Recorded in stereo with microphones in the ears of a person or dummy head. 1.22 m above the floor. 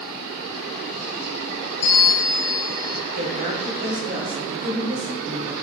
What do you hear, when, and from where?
1.8 s a bell: 30° left (ahead or behind), 0.8 m
3.1 s a woman speaking: 40° right (ahead or behind), 3 m